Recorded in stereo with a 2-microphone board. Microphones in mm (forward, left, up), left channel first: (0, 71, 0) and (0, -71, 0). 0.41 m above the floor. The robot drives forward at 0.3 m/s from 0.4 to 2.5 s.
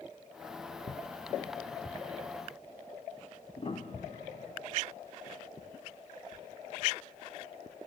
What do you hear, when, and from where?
3.6 s a piano: 45° left (ahead or behind), 0.8 m